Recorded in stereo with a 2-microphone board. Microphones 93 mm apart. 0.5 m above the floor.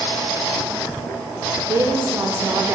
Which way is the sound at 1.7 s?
35° right (ahead or behind).